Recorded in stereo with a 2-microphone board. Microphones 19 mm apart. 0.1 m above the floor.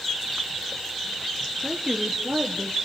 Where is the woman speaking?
30° right (ahead or behind), 1.4 m.